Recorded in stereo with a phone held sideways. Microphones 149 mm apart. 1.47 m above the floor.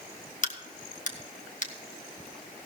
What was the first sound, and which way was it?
A crack, 55° left (ahead or behind).